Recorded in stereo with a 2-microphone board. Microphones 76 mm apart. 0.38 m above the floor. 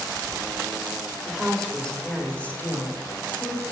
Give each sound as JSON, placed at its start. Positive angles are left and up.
{"t": 1.3, "sound": "a woman speaking", "side_deg": 0, "distance_m": 1.2}